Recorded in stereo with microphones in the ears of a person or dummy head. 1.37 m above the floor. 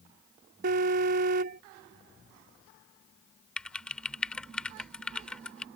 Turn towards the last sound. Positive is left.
turn(degrees=5)  # may be behind; listen again after turning